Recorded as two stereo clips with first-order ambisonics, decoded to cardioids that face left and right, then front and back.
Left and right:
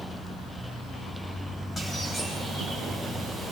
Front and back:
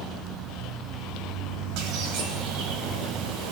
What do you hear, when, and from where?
1.8 s a bird: 165° left, 4.5 m